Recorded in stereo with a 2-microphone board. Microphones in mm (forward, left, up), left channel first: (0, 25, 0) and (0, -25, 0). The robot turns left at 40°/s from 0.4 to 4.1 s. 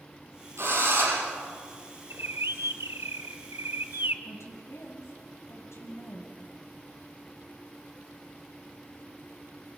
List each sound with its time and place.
0.6 s a drill: 65° right (ahead or behind), 8 m; by 1.2 s 90° right, 8 m
2.1 s a bird: 55° right, 0.9 m; by 4.2 s 135° right, 0.9 m
4.2 s a woman speaking: 70° left (ahead or behind), 4.5 m